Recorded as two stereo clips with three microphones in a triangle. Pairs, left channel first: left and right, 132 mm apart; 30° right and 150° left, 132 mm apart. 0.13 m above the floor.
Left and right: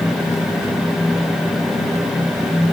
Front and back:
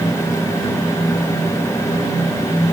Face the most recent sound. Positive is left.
No sound to turn to.